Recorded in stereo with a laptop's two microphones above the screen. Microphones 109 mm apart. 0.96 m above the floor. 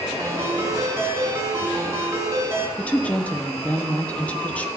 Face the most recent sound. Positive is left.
turn(degrees=15)  # may be behind; listen again after turning